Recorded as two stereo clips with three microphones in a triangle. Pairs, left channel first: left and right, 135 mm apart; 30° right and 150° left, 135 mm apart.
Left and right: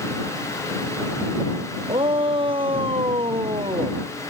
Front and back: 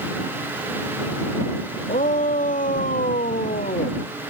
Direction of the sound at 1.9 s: 40° right.